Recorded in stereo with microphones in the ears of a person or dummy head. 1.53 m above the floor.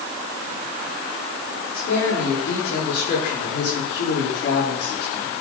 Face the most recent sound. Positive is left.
turn(degrees=85)